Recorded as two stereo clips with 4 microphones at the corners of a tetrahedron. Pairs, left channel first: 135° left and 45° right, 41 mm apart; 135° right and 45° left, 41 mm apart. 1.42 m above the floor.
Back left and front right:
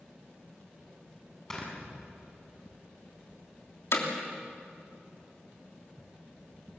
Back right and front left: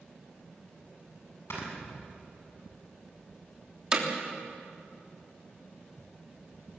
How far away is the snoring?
About 7 m.